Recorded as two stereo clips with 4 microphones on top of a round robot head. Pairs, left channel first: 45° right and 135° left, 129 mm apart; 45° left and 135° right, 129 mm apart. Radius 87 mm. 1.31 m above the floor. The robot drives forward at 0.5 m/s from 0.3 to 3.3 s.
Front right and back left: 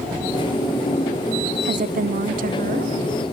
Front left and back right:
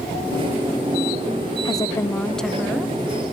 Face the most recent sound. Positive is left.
turn(degrees=150)